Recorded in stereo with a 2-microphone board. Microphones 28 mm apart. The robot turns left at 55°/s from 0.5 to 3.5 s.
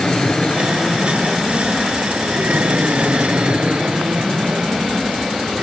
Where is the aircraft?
35° left; by 5.6 s 130° right.